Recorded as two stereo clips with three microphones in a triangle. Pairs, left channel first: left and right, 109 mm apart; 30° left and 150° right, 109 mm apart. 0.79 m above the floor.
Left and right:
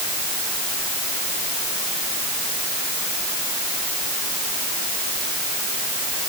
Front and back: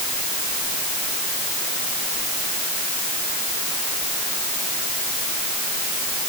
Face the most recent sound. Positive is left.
No sound to turn to.